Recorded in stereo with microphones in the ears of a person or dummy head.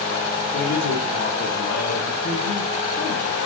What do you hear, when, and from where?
0.5 s a man speaking: 75° left (ahead or behind), 1.6 m